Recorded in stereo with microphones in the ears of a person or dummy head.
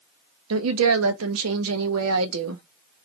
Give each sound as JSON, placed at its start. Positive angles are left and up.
{"t": 0.5, "sound": "a woman speaking", "side_deg": -80, "distance_m": 0.8}